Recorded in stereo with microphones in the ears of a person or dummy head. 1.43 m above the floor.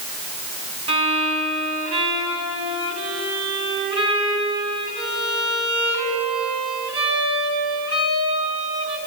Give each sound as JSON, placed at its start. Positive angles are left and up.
{"t": 0.9, "sound": "a violin", "side_deg": -35, "distance_m": 3.5}